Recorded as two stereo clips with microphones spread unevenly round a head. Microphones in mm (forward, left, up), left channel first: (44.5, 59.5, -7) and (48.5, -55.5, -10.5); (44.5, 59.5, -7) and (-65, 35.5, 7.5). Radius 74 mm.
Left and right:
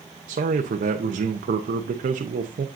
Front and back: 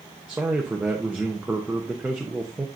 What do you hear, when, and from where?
0.3 s a man speaking: 85° right, 0.8 m